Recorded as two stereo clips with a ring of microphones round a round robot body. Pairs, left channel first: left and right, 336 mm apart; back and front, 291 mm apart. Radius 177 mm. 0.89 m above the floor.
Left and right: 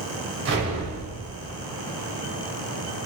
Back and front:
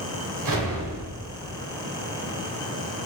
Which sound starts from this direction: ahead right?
An explosion, at 0.5 s.